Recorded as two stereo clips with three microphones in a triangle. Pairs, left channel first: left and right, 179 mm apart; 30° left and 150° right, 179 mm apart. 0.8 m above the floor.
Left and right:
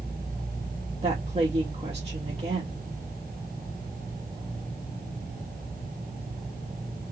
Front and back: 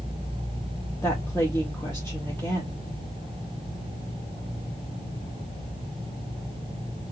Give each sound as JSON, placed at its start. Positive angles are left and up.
{"t": 1.0, "sound": "a woman speaking", "azimuth_deg": -45, "distance_m": 1.0}